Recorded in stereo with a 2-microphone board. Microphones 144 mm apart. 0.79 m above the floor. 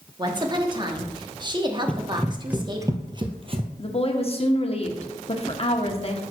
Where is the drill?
No drill in this recording.